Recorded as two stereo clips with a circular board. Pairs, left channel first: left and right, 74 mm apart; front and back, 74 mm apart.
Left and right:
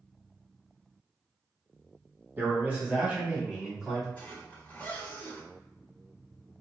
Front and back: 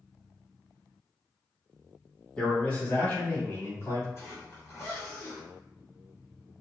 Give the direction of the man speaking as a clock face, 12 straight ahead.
2 o'clock.